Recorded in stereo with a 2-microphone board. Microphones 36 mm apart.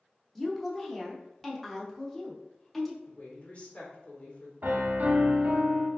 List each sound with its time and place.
0.3 s a woman speaking: 5° left (ahead or behind), 0.8 m
3.0 s a woman speaking: 35° left (ahead or behind), 1.3 m
4.6 s a piano: 55° right (ahead or behind), 0.6 m